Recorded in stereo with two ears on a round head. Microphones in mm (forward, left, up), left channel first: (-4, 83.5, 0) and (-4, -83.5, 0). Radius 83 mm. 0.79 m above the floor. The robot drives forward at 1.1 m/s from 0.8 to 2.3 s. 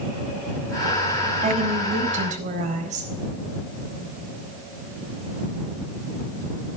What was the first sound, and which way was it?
A woman speaking, 35° right (ahead or behind).